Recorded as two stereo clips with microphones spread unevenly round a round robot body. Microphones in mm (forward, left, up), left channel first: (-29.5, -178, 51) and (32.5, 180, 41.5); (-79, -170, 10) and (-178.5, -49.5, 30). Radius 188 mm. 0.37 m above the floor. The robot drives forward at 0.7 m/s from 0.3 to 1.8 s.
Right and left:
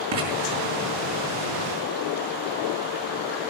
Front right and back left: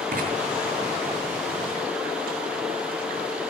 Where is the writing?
100° left, 5.5 m.